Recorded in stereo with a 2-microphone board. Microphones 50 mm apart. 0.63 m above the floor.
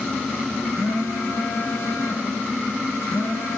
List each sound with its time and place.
0.7 s a phone buzzing: 75° left (ahead or behind), 3.5 m